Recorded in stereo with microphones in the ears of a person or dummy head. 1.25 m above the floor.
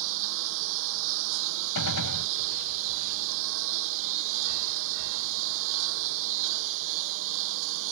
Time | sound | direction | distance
0.0 | a lawn mower | 65° right (ahead or behind) | ?
1.8 | a gunshot | 80° left | ?